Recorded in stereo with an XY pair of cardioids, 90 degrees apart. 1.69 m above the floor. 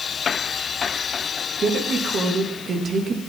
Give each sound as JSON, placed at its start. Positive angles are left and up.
{"t": 1.6, "sound": "a woman speaking", "azimuth_deg": -55, "distance_m": 3.0}